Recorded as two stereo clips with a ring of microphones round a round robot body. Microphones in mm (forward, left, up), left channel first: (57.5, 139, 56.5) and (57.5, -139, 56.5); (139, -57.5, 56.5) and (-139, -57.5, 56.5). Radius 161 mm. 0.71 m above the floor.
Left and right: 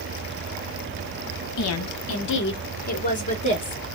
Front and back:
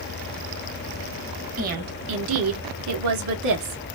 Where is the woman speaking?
120° left, 1.1 m; by 3.8 s 165° left, 1.8 m.